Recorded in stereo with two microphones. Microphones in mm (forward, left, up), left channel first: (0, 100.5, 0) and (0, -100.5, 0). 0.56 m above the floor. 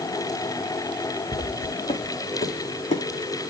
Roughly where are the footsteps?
Left.